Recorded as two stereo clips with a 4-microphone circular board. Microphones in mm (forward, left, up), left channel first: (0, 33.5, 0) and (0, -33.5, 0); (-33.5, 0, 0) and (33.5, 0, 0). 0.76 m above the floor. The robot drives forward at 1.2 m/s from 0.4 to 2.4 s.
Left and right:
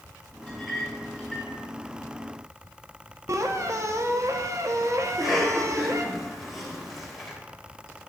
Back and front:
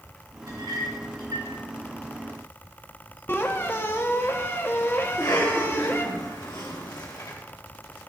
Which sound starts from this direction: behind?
A cough, at 5.0 s.